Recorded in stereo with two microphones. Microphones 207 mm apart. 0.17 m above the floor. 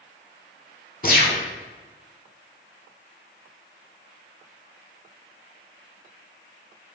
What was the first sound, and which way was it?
A gunshot, 45° left (ahead or behind).